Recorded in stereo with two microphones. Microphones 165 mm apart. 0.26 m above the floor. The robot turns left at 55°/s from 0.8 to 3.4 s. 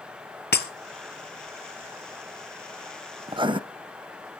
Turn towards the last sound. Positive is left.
turn(degrees=-30)  # may be behind; listen again after turning